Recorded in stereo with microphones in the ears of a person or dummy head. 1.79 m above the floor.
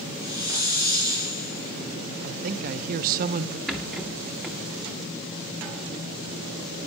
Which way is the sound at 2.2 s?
45° right (ahead or behind).